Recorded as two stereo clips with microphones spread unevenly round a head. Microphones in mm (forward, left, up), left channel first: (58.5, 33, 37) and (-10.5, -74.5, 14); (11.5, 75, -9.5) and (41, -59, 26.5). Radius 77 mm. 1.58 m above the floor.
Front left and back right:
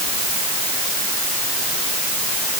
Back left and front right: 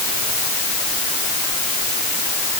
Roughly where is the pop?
I don't hear a pop.